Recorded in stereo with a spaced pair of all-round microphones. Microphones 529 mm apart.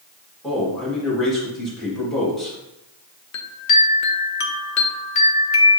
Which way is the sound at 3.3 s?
75° left (ahead or behind).